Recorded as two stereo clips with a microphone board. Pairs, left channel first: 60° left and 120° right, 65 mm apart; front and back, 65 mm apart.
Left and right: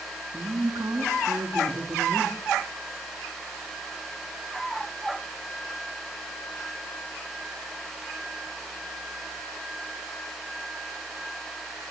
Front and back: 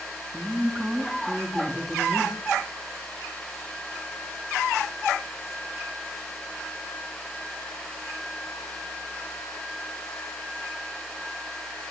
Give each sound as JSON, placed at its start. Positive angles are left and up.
{"t": 0.3, "sound": "a woman speaking", "azimuth_deg": -105, "distance_m": 3.0}